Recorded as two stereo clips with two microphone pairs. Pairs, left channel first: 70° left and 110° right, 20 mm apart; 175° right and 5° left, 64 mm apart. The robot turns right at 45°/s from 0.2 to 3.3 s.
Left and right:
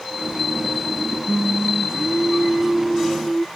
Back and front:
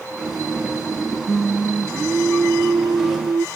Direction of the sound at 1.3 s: 85° right.